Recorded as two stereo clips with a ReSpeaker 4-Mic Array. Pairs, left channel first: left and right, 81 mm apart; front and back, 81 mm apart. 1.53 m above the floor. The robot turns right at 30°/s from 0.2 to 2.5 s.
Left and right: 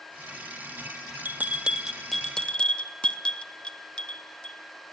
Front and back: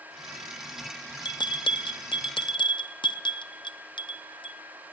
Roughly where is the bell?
Ahead right.